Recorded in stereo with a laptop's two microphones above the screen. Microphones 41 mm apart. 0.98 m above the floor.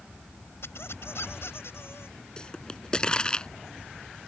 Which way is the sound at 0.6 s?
90° left.